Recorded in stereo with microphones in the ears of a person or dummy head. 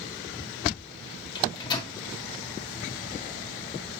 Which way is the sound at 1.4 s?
25° left (ahead or behind).